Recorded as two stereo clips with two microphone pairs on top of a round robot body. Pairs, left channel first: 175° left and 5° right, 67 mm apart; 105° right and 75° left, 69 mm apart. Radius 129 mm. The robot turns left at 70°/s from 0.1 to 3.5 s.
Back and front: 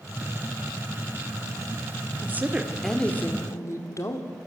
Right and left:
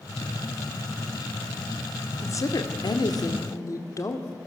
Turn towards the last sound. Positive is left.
turn(degrees=-140)